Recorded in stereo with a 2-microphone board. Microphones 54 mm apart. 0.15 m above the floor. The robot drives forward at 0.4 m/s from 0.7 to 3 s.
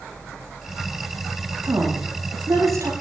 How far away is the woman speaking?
About 9.5 m.